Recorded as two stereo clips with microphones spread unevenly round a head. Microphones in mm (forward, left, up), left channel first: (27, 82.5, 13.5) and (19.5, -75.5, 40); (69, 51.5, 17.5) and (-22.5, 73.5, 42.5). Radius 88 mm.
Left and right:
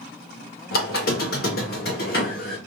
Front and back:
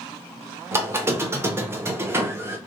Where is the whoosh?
I don't hear a whoosh.